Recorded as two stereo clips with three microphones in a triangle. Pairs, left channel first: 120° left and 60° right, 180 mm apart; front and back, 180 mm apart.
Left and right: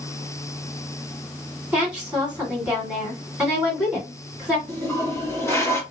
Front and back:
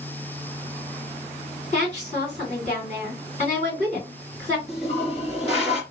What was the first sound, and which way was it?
A woman speaking, 20° left.